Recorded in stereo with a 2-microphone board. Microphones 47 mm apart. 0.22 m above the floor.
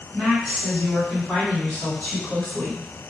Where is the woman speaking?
25° right (ahead or behind), 2.0 m; by 2.8 s 20° left (ahead or behind), 1.6 m.